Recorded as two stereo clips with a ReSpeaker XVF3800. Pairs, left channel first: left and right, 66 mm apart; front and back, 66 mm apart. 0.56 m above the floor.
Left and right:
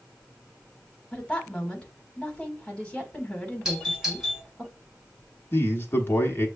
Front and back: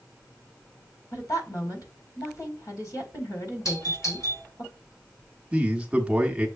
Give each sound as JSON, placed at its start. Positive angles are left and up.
{"t": 1.1, "sound": "a woman speaking", "azimuth_deg": 20, "distance_m": 1.7}
{"t": 3.6, "sound": "a doorbell", "azimuth_deg": -10, "distance_m": 3.0}
{"t": 5.5, "sound": "a man speaking", "azimuth_deg": 120, "distance_m": 1.2}